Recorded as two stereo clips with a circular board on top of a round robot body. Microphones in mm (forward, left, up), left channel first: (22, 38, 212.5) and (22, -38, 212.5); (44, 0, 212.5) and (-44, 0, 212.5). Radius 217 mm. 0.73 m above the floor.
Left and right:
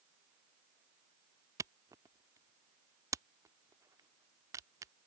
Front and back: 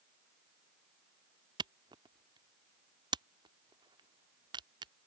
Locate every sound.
1.6 s a camera shutter: 140° right